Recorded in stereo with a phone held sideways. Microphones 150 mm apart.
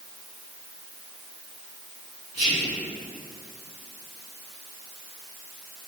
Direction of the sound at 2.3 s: 45° right (ahead or behind).